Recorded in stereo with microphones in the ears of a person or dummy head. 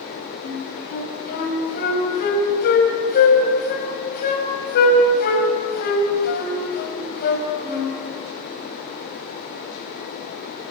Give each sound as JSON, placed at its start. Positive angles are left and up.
{"t": 0.4, "sound": "a flute", "side_deg": 60, "distance_m": 5.5}